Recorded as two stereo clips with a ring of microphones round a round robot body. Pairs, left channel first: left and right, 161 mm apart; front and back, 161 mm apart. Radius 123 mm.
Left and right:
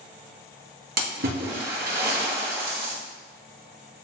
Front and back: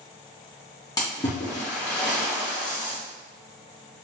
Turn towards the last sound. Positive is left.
turn(degrees=-75)